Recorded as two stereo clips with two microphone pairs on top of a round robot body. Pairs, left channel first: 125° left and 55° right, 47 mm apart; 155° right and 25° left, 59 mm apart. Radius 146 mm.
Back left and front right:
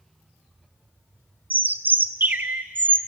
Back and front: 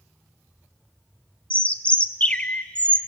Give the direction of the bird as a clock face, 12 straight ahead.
3 o'clock.